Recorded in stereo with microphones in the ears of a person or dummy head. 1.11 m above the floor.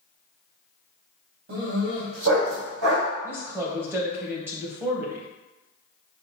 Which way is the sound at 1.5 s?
75° right (ahead or behind).